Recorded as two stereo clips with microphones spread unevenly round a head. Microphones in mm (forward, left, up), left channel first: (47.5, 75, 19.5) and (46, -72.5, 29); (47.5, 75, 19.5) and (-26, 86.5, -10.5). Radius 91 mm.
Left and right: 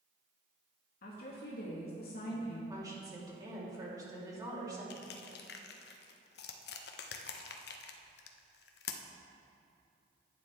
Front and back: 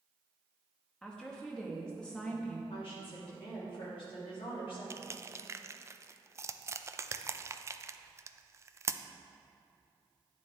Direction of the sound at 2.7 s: 25° right.